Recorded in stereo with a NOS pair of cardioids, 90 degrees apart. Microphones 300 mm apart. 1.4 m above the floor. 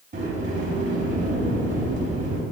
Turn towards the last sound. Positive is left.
turn(degrees=-40)